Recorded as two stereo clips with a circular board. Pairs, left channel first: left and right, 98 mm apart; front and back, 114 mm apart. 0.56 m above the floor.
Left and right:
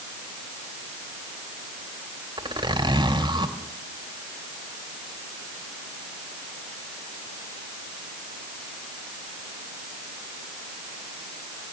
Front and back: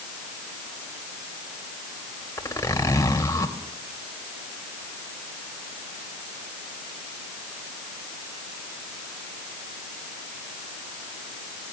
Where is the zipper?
60° right, 2.5 m.